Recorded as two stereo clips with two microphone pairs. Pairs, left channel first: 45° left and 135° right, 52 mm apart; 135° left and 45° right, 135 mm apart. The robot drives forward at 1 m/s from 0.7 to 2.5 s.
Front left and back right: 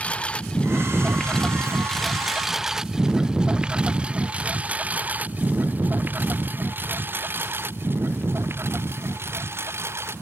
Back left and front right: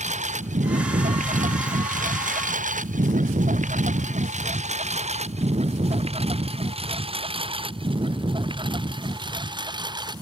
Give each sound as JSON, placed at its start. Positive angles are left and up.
{"t": 0.0, "sound": "a lawn mower", "azimuth_deg": -20}